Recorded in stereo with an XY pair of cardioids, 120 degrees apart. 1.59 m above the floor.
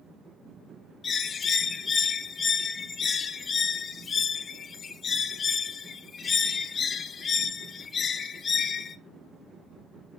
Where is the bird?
35° left, 0.8 m.